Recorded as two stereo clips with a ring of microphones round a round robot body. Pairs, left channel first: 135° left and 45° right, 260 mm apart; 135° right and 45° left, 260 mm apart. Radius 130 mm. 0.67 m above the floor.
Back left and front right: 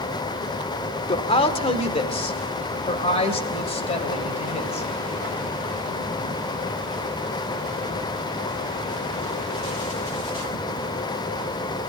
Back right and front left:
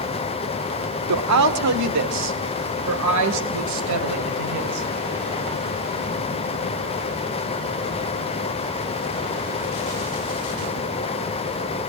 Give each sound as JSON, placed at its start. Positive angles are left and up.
{"t": 1.1, "sound": "a woman speaking", "azimuth_deg": 65, "distance_m": 1.7}